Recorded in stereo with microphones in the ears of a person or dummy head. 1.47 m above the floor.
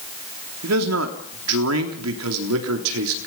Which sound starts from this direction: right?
A man speaking, at 0.6 s.